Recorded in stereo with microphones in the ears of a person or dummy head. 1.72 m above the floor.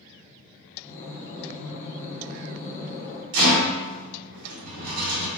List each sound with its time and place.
0.8 s breathing: 15° left (ahead or behind), 0.9 m
3.3 s a rattle: 70° right (ahead or behind), 1.3 m